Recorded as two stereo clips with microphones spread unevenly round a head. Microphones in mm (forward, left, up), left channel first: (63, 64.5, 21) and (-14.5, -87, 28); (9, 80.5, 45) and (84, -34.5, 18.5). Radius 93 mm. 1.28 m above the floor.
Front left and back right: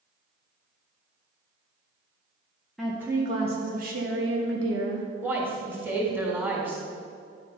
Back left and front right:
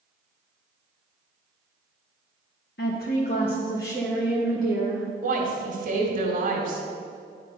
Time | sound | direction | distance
2.8 | a woman speaking | 150° left | 0.8 m
5.2 | a woman speaking | 40° right | 2 m